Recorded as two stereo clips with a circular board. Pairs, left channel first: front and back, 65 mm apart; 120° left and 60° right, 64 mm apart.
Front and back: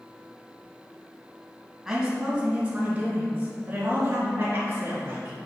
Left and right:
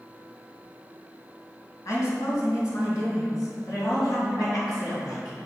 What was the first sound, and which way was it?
A woman speaking, 100° left.